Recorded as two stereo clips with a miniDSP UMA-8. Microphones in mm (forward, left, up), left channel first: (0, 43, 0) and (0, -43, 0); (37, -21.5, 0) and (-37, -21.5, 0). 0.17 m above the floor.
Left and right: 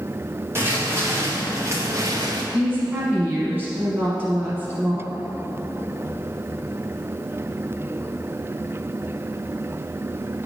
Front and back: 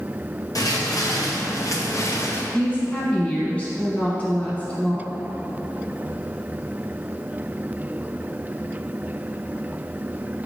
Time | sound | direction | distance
0.6 | footsteps | 30° right | 2.5 m
2.5 | a woman speaking | 50° right | 1.1 m